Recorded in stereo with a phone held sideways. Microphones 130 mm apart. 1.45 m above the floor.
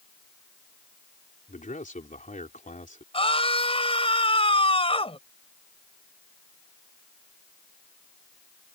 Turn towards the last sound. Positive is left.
turn(degrees=45)  # may be behind; listen again after turning